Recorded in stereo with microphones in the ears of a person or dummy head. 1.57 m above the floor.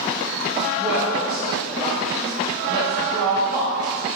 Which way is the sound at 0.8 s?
15° right (ahead or behind).